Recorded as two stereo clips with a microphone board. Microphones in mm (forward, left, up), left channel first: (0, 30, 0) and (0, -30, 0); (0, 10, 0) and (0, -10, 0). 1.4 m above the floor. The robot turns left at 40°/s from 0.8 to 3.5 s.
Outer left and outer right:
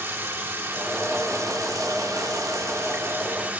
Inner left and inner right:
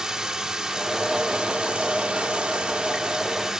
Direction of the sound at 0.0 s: 45° right.